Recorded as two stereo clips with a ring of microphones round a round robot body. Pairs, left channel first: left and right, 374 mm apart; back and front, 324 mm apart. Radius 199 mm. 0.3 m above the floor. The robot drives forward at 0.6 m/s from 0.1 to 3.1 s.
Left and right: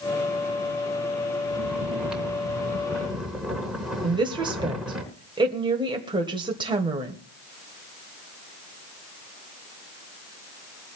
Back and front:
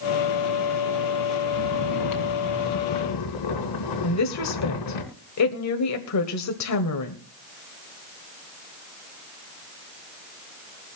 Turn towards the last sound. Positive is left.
turn(degrees=-165)